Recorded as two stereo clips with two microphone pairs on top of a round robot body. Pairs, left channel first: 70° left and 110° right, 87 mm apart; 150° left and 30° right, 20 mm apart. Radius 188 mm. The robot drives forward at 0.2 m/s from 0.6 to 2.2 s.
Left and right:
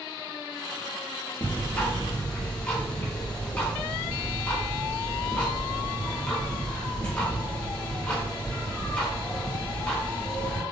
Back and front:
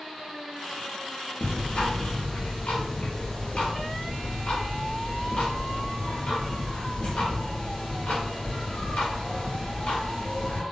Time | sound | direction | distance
1.4 | ticking | 140° left | 0.9 m